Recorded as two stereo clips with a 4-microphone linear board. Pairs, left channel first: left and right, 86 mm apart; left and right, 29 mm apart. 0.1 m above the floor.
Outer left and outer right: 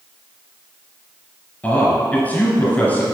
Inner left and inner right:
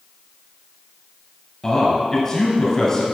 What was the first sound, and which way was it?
A man speaking, 20° left (ahead or behind).